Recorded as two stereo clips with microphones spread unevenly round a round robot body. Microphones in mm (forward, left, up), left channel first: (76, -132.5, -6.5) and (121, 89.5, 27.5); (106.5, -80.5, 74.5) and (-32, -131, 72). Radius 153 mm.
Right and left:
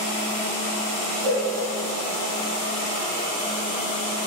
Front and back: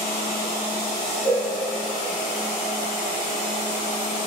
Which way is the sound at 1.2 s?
105° left.